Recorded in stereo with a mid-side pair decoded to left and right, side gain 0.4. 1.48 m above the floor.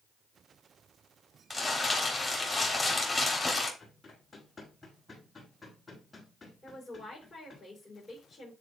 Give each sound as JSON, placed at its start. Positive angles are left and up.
{"t": 1.5, "sound": "crumpling", "azimuth_deg": 15, "distance_m": 3.5}
{"t": 3.8, "sound": "running footsteps", "azimuth_deg": 25, "distance_m": 5.0}
{"t": 6.6, "sound": "a woman speaking", "azimuth_deg": 30, "distance_m": 4.5}